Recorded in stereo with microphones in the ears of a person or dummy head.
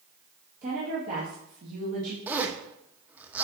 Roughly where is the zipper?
Centre.